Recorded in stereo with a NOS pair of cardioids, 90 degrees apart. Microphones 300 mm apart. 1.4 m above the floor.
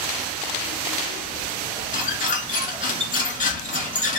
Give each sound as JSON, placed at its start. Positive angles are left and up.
{"t": 1.9, "sound": "a squeak", "azimuth_deg": 25, "distance_m": 1.5}